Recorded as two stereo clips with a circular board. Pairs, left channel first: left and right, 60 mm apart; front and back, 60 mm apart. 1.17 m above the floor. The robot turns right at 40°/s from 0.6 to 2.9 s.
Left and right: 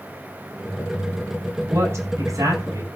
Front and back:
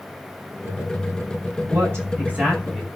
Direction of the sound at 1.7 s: 140° right.